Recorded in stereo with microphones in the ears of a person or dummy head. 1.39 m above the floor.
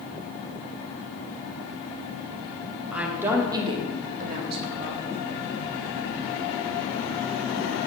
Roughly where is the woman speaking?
Centre.